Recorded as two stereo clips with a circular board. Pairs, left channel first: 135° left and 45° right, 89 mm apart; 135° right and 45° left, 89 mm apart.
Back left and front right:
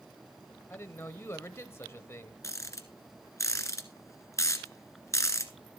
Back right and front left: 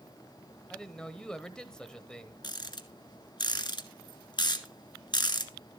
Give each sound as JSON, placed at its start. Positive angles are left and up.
{"t": 0.7, "sound": "a man speaking", "azimuth_deg": 150, "distance_m": 1.2}
{"t": 2.4, "sound": "a rattle", "azimuth_deg": -170, "distance_m": 1.4}